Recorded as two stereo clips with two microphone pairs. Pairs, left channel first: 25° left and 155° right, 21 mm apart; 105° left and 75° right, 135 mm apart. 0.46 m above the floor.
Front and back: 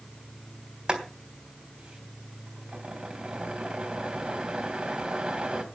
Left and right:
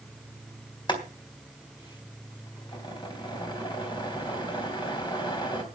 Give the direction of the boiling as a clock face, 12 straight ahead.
7 o'clock.